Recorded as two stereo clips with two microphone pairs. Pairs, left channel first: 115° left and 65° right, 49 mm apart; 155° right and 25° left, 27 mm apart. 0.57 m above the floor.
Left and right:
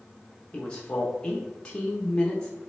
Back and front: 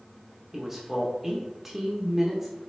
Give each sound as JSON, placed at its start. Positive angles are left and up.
{"t": 0.5, "sound": "a man speaking", "azimuth_deg": 90, "distance_m": 0.6}